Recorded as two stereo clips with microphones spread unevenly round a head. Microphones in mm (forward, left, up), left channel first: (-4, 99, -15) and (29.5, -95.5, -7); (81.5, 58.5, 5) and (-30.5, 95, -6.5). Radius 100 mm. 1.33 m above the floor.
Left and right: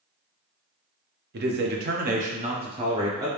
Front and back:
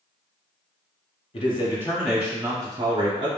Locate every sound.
1.3 s a man speaking: 60° right, 0.6 m; by 3.3 s 155° right, 1.0 m